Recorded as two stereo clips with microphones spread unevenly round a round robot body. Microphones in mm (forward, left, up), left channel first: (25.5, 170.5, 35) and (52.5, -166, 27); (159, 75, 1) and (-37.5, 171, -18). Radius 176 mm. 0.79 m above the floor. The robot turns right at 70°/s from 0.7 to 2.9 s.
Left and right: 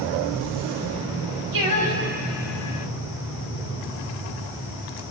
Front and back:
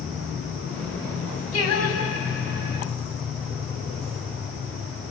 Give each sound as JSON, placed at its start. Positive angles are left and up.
{"t": 1.5, "sound": "singing", "azimuth_deg": -65, "distance_m": 5.0}